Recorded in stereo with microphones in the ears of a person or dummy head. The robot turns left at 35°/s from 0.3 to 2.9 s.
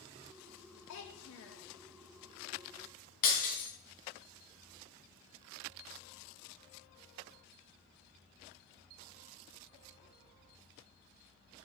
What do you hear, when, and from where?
0.9 s a child speaking: 70° left (ahead or behind), 1.1 m; by 1.7 s 75° left (ahead or behind), 1.1 m
3.2 s breaking glass: 50° left (ahead or behind), 3.5 m